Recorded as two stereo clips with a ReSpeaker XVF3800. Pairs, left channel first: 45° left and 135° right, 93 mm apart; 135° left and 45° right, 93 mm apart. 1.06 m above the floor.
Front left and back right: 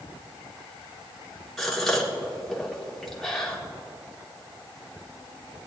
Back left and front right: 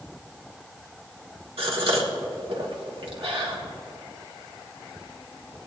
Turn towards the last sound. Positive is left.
turn(degrees=-40)